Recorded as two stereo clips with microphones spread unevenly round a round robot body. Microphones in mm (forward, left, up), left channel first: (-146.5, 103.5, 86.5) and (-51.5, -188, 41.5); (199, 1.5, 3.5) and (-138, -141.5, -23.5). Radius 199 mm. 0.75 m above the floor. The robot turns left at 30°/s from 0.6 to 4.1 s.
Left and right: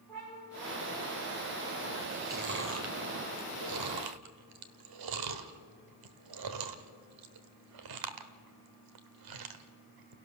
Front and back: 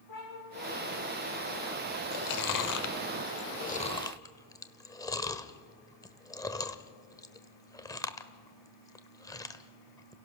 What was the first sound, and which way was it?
A cat meowing, 25° left.